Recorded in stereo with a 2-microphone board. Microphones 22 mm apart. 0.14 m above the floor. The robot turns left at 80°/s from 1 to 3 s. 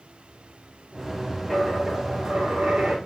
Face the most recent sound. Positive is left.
turn(degrees=-115)